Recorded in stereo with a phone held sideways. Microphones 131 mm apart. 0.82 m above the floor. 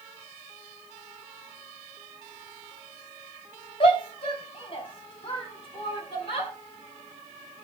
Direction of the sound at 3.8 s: 45° left (ahead or behind).